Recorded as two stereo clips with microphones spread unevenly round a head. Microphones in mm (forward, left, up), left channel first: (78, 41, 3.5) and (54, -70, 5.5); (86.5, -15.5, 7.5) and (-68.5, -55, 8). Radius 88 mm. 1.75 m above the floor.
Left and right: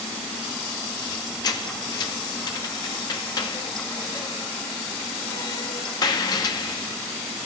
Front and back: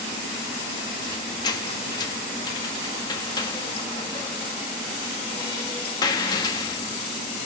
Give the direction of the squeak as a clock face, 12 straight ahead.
10 o'clock.